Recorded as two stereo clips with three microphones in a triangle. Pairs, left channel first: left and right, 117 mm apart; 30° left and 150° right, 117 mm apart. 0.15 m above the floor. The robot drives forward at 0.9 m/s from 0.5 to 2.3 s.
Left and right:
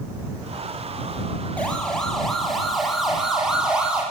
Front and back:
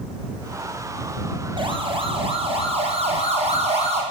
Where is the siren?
170° left, 6.5 m; by 4.0 s 170° right, 9 m.